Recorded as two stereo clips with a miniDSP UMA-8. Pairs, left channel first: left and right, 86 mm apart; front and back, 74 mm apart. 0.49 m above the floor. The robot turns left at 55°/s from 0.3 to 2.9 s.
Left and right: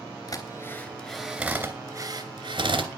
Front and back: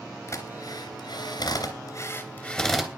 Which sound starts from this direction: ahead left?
A drill, at 0.3 s.